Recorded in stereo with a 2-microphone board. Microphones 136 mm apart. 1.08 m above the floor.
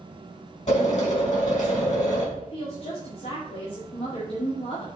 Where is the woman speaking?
55° left (ahead or behind), 2 m.